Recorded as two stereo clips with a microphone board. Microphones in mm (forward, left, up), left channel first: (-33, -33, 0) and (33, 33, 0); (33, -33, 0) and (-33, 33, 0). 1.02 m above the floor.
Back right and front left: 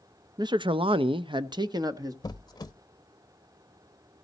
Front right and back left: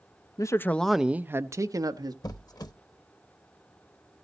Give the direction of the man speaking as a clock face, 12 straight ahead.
12 o'clock.